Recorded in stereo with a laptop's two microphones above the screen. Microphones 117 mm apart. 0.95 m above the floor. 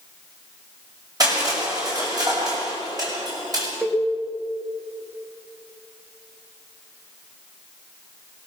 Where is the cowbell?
5° right (ahead or behind), 2.5 m.